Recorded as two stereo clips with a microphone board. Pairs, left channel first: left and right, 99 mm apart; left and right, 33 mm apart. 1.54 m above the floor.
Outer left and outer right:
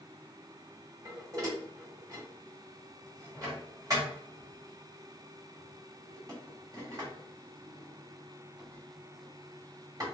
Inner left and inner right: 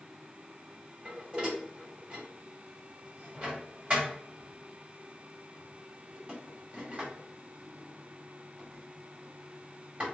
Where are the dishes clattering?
35° right (ahead or behind), 1.7 m.